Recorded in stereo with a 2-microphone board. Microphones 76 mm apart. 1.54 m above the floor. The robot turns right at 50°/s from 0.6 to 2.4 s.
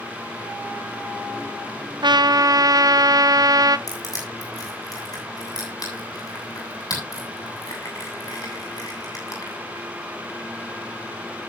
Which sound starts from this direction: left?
Crushing, at 3.9 s.